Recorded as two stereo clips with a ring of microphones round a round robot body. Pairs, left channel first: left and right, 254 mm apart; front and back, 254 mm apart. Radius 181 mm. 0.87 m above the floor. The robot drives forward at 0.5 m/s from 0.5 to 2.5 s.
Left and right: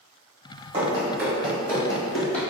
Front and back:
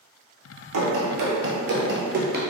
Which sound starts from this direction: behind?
Running footsteps, at 0.7 s.